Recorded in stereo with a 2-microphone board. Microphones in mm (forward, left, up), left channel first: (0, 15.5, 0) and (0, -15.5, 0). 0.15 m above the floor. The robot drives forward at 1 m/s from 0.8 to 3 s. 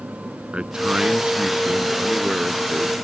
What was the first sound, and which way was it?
A man speaking, 35° right (ahead or behind).